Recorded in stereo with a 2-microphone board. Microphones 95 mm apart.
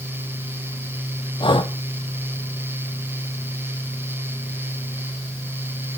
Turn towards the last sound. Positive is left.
turn(degrees=60)  # may be behind; listen again after turning